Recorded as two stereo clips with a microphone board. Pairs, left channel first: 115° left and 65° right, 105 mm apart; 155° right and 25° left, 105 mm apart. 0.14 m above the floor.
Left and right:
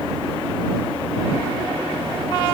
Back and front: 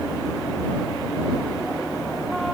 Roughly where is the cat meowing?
No cat meowing in this recording.